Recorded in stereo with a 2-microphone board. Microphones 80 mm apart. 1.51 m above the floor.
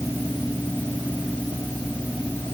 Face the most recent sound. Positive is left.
No sound to turn to.